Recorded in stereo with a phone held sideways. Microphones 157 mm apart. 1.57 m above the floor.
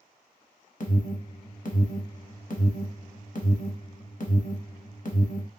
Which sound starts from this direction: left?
An alarm, at 0.8 s.